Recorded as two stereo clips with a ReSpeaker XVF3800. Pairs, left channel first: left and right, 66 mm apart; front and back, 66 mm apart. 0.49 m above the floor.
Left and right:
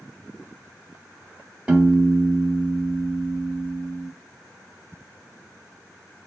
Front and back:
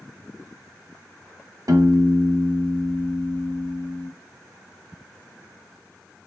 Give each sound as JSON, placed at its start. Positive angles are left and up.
{"t": 1.7, "sound": "a piano", "azimuth_deg": -160, "distance_m": 1.0}